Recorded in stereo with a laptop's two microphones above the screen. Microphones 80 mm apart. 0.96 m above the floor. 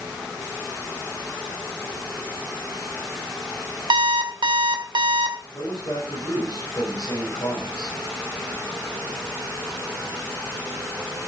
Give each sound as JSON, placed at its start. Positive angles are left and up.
{"t": 3.9, "sound": "an alarm clock", "side_deg": -80, "distance_m": 2.0}
{"t": 5.5, "sound": "a man speaking", "side_deg": 65, "distance_m": 5.5}